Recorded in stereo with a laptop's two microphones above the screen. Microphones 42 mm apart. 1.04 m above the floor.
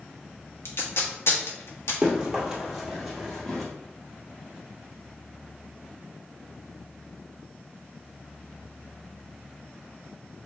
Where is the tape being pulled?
75° left (ahead or behind), 1.1 m.